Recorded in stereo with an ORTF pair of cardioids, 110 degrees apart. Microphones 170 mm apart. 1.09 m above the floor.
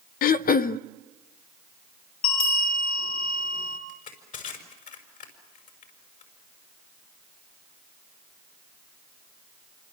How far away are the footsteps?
No footsteps in this recording.